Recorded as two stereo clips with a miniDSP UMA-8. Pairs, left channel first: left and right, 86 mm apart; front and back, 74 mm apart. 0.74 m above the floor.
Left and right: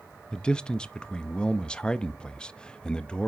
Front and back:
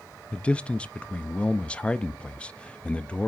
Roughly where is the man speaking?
Ahead left.